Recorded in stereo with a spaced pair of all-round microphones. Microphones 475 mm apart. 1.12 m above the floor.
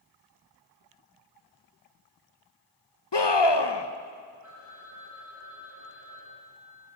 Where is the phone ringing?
35° right (ahead or behind), 8 m.